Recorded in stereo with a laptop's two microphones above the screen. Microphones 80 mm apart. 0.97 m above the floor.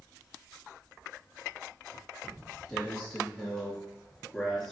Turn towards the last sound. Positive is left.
turn(degrees=5)  # may be behind; listen again after turning